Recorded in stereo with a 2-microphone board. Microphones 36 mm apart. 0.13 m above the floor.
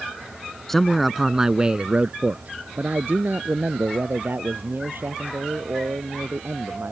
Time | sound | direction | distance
0.7 | a man speaking | 10° left (ahead or behind) | ?